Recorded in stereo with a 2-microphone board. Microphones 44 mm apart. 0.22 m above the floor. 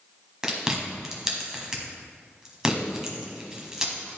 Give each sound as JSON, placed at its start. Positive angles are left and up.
{"t": 0.4, "sound": "chewing", "side_deg": -15, "distance_m": 1.3}